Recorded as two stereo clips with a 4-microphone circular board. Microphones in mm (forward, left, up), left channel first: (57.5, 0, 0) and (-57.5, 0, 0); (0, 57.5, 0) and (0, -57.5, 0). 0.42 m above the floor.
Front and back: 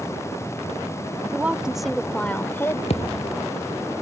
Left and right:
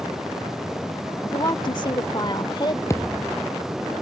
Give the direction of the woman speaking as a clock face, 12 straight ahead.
8 o'clock.